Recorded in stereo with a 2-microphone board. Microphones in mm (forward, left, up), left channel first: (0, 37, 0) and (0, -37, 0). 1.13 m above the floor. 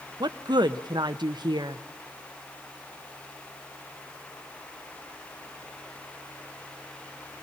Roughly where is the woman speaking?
Right.